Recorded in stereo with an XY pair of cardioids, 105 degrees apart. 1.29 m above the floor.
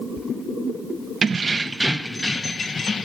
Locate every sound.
1.2 s keys jangling: 35° right, 0.6 m; by 3.1 s 45° left, 0.9 m